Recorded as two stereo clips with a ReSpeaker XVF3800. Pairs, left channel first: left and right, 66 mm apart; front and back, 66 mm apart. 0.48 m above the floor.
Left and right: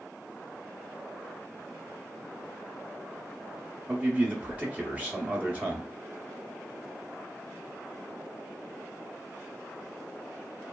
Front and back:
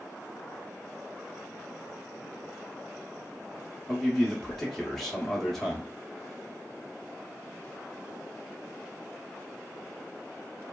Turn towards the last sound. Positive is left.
turn(degrees=-85)